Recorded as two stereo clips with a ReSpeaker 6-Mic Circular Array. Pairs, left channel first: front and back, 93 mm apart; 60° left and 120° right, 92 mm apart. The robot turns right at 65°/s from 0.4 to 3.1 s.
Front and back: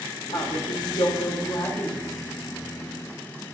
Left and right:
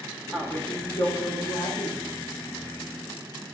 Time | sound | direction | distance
0.3 | a woman speaking | 20° right | 2.5 m